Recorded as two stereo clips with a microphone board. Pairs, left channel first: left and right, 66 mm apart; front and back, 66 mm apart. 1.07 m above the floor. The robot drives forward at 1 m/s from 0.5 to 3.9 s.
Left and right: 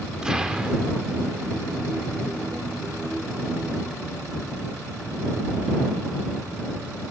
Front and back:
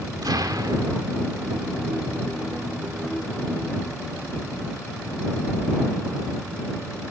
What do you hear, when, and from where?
0.2 s an explosion: 170° right, 2 m